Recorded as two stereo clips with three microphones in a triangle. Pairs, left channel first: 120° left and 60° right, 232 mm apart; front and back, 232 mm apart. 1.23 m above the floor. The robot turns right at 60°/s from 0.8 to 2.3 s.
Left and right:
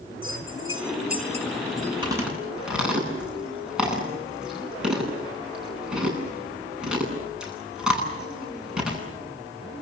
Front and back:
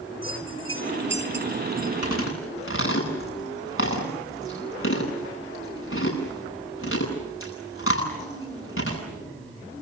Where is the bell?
30° right, 4.5 m; by 1.9 s 40° left, 4.5 m.